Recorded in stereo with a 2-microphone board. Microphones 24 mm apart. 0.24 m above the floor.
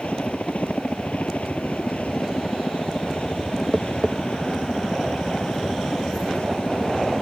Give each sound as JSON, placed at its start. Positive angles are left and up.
{"t": 0.0, "sound": "a helicopter", "side_deg": 75}
{"t": 3.7, "sound": "tapping", "side_deg": -15}